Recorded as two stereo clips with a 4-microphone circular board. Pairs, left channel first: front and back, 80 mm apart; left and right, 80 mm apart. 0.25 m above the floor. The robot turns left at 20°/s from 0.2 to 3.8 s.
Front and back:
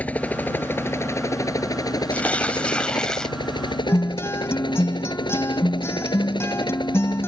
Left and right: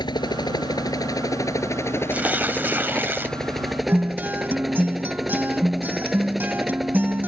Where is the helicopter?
70° left; by 7.3 s straight ahead.